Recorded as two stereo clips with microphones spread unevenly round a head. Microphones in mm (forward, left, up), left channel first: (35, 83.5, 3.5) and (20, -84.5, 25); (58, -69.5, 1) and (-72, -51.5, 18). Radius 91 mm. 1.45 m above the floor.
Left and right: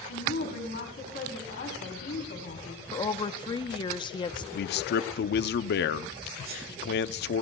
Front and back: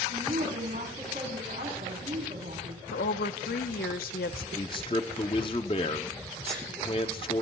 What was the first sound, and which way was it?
A woman speaking, 120° left.